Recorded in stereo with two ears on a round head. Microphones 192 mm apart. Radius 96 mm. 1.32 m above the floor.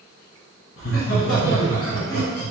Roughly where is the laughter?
Left.